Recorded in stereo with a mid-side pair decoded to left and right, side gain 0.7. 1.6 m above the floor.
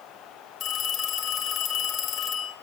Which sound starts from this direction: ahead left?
A phone ringing, at 0.6 s.